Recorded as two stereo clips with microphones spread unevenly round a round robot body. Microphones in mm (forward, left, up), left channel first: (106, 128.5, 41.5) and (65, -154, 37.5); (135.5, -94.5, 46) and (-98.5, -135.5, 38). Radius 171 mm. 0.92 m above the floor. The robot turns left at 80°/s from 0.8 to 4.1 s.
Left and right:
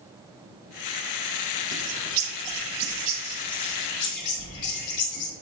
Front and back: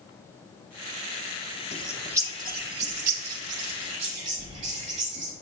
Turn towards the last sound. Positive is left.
turn(degrees=115)